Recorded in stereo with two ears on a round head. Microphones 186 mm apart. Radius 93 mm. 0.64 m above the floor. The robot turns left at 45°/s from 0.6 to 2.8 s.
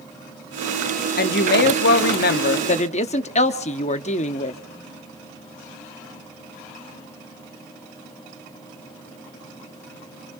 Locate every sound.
1.2 s a woman speaking: 115° left, 0.8 m; by 4.6 s 40° left, 0.8 m